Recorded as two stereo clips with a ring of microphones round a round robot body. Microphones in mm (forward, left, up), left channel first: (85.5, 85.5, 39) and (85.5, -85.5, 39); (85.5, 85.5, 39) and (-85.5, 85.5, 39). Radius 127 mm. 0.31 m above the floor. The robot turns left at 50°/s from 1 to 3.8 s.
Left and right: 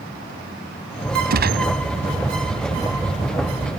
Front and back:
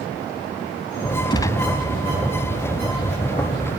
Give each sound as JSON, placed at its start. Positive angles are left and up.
{"t": 1.3, "sound": "a gunshot", "azimuth_deg": -65}